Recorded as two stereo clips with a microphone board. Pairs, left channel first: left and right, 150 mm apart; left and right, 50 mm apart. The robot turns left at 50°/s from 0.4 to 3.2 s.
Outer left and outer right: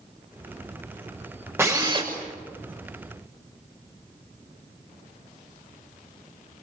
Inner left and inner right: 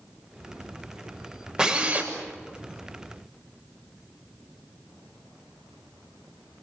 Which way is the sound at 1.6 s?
15° right (ahead or behind).